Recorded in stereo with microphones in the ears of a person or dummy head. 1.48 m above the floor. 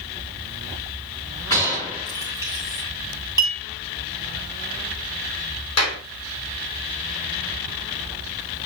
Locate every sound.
1.5 s a gunshot: 15° left (ahead or behind), 2.5 m
3.4 s a clink: 15° right (ahead or behind), 1.7 m
5.8 s a clap: 90° left, 2.5 m